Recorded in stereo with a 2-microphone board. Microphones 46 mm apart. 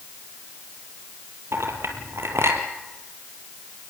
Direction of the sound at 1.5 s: 70° right (ahead or behind).